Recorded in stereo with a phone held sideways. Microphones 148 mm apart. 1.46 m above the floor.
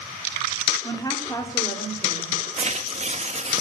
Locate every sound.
0.8 s a woman speaking: 25° left (ahead or behind), 3.5 m
2.6 s tearing paper: 50° right (ahead or behind), 2.0 m